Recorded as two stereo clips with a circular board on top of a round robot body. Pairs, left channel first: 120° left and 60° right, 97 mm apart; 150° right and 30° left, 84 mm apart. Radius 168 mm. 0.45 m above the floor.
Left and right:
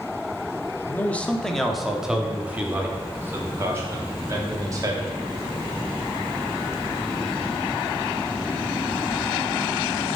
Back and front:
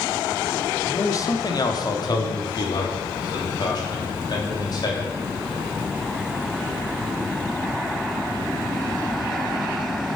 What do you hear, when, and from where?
0.9 s a man speaking: straight behind, 1.3 m; by 5.1 s 115° right, 3 m